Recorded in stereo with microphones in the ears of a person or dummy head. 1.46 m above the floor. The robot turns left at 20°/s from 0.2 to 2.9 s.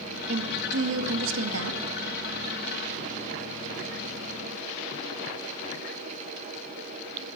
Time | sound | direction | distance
0.3 | a woman speaking | 65° right | 2 m